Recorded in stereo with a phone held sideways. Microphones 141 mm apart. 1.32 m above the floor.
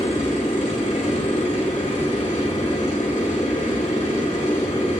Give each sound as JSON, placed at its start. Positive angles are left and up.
{"t": 0.0, "sound": "a machine running", "side_deg": 70, "distance_m": 5.0}